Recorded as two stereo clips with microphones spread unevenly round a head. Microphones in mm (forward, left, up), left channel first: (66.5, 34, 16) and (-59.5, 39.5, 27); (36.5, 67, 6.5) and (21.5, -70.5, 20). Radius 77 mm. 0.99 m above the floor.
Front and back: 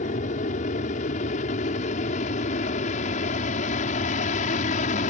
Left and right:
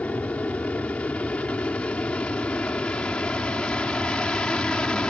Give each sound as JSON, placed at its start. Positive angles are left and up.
{"t": 0.0, "sound": "an aircraft", "azimuth_deg": 5}